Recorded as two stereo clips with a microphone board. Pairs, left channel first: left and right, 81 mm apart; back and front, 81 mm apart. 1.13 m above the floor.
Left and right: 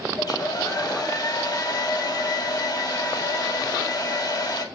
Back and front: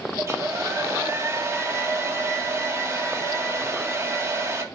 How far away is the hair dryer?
About 1.6 m.